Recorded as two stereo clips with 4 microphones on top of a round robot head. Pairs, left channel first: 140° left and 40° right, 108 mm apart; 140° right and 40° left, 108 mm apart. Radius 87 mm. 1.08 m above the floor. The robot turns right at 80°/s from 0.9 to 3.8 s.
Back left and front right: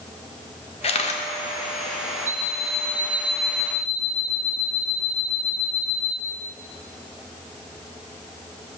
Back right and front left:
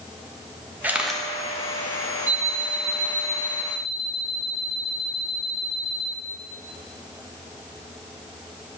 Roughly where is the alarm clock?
Ahead right.